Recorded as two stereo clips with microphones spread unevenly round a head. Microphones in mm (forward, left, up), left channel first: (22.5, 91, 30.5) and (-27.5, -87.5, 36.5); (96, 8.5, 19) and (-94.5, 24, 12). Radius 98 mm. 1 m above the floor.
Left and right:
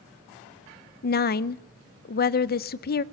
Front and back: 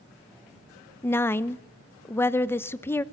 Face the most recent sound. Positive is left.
turn(degrees=75)